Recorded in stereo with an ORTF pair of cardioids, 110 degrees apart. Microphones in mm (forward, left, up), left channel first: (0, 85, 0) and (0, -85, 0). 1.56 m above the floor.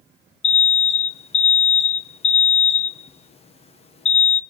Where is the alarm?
40° left, 1.4 m.